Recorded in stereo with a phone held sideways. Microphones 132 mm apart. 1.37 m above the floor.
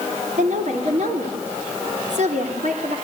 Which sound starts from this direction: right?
A woman speaking, at 0.4 s.